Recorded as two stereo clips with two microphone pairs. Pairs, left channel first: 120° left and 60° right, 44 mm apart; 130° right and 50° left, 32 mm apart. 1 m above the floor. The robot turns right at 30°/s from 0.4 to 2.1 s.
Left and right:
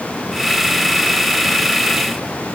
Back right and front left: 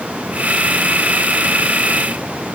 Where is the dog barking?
I don't hear a dog barking.